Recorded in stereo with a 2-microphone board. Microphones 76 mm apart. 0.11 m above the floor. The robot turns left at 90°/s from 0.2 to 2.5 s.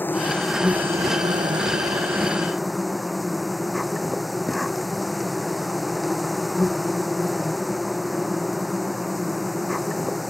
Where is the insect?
25° left; by 10.3 s straight behind.